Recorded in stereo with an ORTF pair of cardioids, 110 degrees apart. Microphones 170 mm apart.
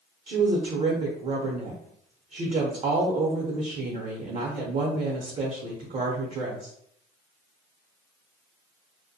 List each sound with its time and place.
0.3 s a woman speaking: 40° right, 0.8 m